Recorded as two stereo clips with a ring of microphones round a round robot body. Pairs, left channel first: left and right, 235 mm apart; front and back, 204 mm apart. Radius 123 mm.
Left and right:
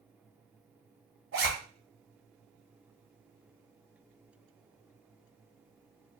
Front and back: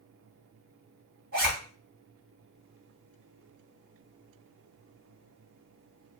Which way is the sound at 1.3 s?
130° right.